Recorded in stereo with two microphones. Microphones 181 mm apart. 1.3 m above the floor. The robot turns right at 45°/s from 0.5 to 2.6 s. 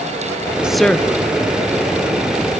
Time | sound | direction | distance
0.6 | a woman speaking | 5° right (ahead or behind) | 0.7 m